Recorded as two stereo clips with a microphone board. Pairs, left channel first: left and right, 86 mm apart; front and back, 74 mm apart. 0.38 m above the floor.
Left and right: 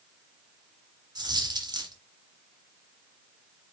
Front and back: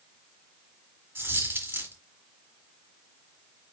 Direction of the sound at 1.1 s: 120° right.